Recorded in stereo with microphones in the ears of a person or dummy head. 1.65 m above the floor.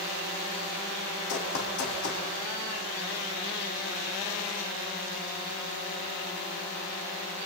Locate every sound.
1.3 s running footsteps: 50° left (ahead or behind), 4.5 m